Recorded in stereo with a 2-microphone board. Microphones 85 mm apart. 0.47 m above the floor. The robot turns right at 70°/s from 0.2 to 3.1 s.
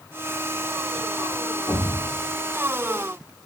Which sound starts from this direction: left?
A thud, at 1.7 s.